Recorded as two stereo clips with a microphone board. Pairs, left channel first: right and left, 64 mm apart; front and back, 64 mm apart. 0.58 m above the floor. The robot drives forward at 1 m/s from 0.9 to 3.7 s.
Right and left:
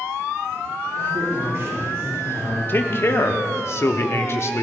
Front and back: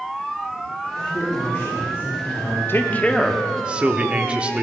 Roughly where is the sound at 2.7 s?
Ahead right.